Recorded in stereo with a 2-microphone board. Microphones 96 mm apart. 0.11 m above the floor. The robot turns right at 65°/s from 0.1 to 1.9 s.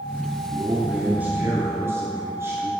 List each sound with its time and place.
0.5 s a man speaking: centre (ahead or behind), 1.1 m; by 2.7 s 25° right (ahead or behind), 1.1 m